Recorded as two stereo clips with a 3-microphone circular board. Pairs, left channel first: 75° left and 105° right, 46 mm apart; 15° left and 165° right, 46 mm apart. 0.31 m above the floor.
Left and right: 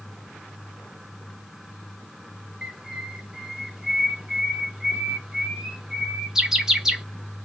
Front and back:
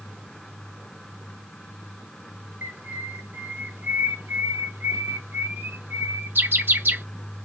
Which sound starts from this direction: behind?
A bird, at 2.6 s.